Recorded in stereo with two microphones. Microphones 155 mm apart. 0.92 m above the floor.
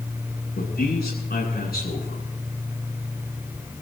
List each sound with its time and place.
0.6 s a man speaking: 90° left, 8 m